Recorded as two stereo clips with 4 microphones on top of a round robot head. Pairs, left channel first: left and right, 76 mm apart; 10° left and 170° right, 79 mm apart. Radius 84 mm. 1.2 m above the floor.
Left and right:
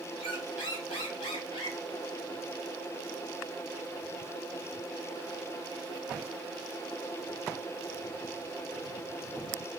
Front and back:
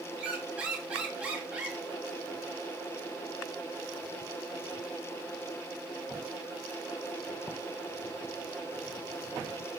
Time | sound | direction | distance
0.2 | a squeak | 115° left | 1.1 m